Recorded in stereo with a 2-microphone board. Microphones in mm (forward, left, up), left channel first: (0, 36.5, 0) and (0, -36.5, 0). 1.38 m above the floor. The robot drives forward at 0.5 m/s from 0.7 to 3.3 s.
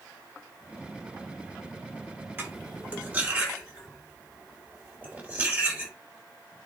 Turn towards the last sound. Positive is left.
turn(degrees=-25)  # may be behind; listen again after turning